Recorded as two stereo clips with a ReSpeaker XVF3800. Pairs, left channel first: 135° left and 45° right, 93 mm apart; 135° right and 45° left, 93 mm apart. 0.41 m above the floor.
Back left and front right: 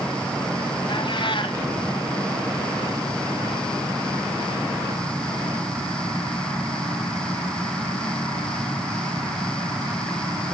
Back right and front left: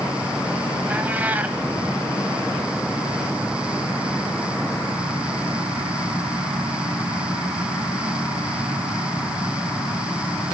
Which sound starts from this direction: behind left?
A cat meowing, at 0.9 s.